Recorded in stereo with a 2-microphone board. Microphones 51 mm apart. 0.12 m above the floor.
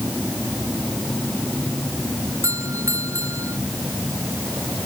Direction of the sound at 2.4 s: 85° right.